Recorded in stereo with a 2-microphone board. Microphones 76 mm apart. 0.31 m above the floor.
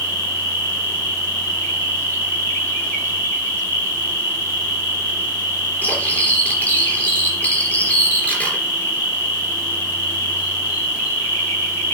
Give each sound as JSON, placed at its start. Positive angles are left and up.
{"t": 0.0, "sound": "an insect", "side_deg": 25, "distance_m": 5.0}
{"t": 5.8, "sound": "cutlery clinking", "side_deg": 20, "distance_m": 3.5}